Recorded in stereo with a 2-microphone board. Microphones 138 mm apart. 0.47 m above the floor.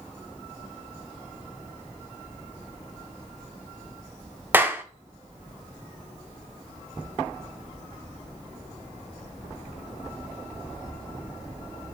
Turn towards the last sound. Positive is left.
turn(degrees=-15)  # may be behind; listen again after turning